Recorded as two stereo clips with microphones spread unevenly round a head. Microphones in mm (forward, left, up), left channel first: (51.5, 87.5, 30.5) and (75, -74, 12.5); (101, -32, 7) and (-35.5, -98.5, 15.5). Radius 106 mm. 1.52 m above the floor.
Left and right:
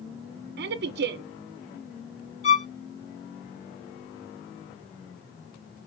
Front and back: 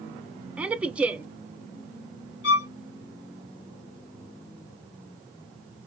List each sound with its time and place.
0.6 s a woman speaking: 70° right, 0.6 m
2.4 s a violin: 50° left, 1.5 m